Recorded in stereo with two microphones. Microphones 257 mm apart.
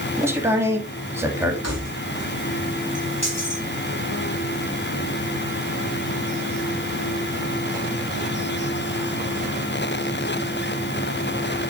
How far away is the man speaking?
About 1.9 m.